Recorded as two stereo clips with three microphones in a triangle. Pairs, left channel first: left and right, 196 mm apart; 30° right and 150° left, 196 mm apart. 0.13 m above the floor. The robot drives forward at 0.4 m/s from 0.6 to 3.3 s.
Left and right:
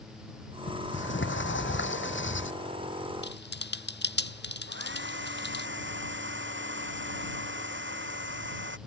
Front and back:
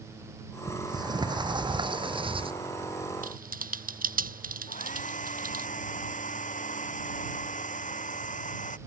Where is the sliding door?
80° left; by 2.5 s 90° left.